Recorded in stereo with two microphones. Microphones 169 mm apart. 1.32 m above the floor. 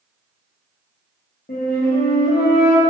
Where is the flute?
60° left (ahead or behind), 0.5 m.